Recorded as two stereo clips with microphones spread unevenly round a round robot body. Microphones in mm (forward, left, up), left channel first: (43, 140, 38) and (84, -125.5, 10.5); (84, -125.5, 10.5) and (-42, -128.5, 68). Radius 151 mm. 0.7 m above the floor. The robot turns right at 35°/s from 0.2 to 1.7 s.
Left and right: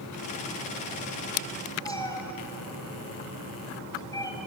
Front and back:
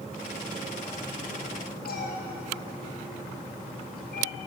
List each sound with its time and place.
1.9 s a cat meowing: 25° left, 2 m